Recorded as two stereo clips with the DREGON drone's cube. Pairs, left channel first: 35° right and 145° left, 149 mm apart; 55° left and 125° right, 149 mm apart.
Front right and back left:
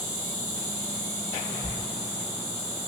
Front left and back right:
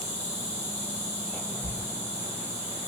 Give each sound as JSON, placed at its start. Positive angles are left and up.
{"t": 0.0, "sound": "an insect", "azimuth_deg": -150, "distance_m": 1.7}
{"t": 1.6, "sound": "a thud", "azimuth_deg": -85, "distance_m": 0.6}